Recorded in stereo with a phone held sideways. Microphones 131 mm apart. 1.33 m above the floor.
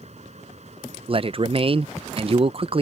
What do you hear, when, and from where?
0.0 s a fan: 55° right (ahead or behind)
1.1 s a man speaking: 45° right (ahead or behind)